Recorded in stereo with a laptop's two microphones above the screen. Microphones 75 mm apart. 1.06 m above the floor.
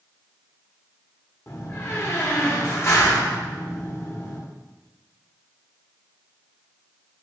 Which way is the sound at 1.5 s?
35° left (ahead or behind).